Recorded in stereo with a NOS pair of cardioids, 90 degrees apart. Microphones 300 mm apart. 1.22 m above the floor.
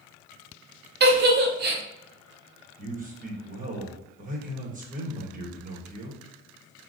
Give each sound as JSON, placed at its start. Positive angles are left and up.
{"t": 1.0, "sound": "a giggle", "azimuth_deg": -35, "distance_m": 0.7}
{"t": 2.8, "sound": "a man speaking", "azimuth_deg": -25, "distance_m": 1.0}